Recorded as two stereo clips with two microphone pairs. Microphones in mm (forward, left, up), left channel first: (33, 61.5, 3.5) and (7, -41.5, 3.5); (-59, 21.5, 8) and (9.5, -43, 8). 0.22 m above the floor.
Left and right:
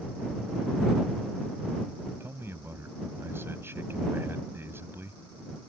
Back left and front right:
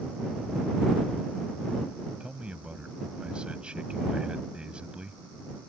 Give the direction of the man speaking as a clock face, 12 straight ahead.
3 o'clock.